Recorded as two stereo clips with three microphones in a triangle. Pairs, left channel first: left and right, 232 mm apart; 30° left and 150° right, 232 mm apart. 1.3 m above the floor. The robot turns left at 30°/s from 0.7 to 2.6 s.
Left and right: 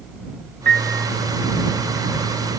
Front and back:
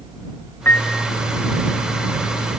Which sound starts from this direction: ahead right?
A piano, at 0.7 s.